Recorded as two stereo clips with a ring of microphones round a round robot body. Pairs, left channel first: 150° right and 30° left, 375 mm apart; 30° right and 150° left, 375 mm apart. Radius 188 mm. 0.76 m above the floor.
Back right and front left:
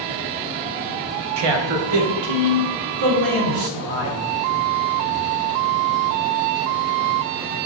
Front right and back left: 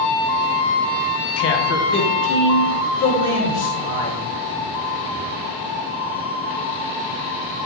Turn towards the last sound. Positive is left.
turn(degrees=25)